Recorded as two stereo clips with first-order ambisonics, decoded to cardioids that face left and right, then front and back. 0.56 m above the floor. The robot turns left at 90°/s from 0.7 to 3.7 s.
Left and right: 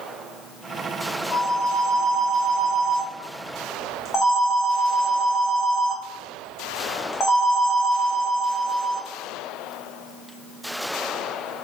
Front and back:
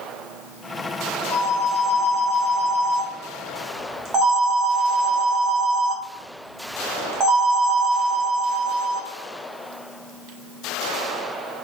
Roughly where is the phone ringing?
Ahead.